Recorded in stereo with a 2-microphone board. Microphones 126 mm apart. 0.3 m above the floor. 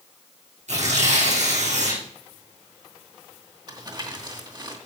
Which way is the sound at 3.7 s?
35° right (ahead or behind).